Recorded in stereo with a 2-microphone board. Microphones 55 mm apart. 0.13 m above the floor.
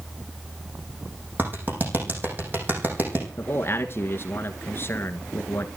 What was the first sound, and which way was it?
A clap, 40° right (ahead or behind).